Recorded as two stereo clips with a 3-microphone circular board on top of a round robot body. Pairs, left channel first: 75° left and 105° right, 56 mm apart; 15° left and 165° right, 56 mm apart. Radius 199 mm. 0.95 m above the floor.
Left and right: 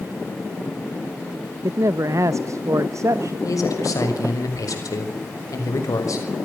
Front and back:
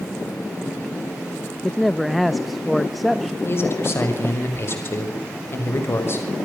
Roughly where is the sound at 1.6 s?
Right.